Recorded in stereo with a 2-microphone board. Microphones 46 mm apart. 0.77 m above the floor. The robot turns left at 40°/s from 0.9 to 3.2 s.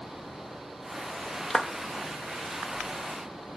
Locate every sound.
1.5 s a clap: 5° left (ahead or behind), 0.7 m; by 1.7 s 10° left (ahead or behind), 0.7 m